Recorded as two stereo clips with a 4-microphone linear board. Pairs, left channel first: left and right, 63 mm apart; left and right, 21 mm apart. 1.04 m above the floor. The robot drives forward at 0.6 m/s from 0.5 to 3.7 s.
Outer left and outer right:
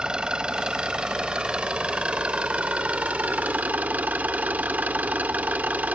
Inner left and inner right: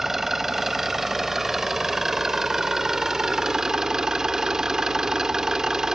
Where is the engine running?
15° right (ahead or behind); by 6.0 s 25° right (ahead or behind).